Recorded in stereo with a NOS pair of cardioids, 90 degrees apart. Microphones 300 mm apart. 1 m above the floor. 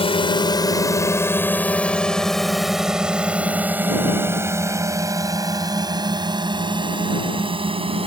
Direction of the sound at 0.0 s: 20° left.